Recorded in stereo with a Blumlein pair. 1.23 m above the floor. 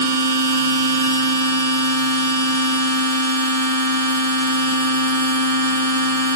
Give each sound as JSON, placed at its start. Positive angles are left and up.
{"t": 0.0, "sound": "a machine running", "azimuth_deg": -65, "distance_m": 1.1}